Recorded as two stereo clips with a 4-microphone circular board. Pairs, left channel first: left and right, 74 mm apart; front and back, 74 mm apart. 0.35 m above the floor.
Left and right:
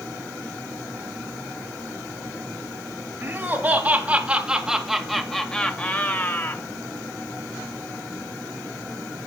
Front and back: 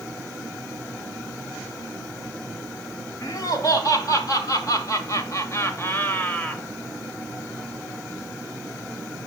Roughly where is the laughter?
Ahead right.